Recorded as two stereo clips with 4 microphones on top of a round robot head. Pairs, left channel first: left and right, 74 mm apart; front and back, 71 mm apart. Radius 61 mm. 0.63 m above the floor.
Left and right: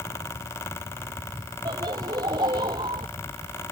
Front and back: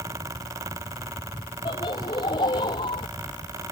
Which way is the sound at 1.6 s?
45° right.